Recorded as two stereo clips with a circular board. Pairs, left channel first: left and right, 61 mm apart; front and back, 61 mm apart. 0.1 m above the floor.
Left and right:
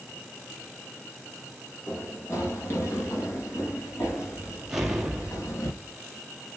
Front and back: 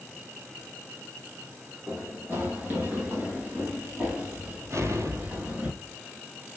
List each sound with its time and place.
1.9 s running footsteps: 130° left, 7 m; by 5.7 s 115° left, 8 m
4.7 s an explosion: 175° right, 1.8 m